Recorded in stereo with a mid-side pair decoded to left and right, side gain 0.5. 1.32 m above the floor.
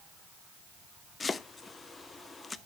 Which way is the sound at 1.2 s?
25° left.